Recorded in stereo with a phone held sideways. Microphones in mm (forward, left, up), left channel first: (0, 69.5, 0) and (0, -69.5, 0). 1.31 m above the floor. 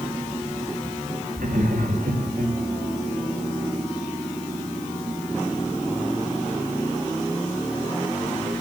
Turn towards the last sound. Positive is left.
turn(degrees=-85)